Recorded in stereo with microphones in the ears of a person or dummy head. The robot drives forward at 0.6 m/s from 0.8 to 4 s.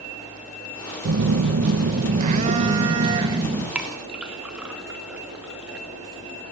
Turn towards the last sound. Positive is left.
turn(degrees=-10)  # may be behind; listen again after turning